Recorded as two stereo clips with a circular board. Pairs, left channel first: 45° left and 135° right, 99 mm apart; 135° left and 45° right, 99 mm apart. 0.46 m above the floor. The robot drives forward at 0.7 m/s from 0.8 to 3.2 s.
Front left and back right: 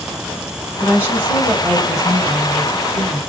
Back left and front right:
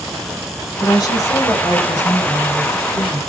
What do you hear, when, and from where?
0.8 s a woman speaking: 160° left, 1.5 m; by 3.2 s 170° left, 3 m